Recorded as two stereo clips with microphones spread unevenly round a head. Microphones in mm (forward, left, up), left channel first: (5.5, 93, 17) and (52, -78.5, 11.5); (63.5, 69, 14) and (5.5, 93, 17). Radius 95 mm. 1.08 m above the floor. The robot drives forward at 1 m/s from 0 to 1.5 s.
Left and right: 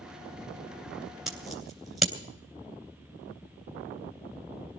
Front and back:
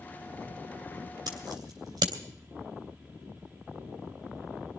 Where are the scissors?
165° right, 3 m.